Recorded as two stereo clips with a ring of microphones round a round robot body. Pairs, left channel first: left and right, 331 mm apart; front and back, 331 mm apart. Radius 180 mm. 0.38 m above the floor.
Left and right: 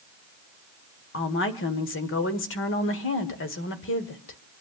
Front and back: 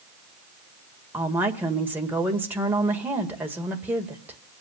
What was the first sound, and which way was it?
A woman speaking, 100° left.